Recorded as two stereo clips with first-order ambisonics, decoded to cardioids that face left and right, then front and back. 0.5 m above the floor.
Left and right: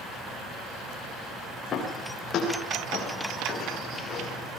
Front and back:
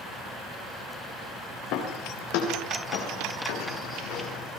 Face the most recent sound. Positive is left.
turn(degrees=25)